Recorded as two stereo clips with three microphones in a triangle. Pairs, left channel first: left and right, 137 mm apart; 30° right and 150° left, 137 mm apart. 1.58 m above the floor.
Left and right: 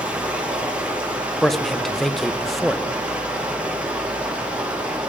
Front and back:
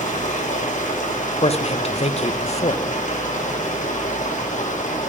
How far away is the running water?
About 1.8 m.